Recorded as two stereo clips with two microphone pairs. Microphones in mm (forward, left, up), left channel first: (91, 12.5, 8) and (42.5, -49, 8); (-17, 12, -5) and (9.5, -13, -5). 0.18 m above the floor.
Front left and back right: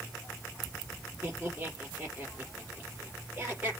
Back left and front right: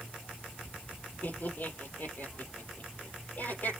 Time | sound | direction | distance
1.2 | laughter | 165° left | 5 m